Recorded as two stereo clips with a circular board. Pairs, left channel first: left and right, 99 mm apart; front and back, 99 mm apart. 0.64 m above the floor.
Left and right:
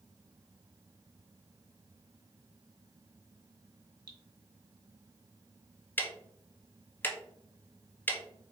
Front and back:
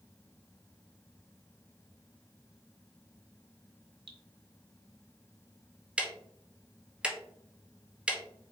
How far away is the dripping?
About 1.0 m.